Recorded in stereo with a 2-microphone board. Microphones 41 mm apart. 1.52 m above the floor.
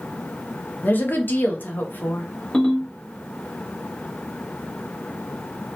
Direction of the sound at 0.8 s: 50° left (ahead or behind).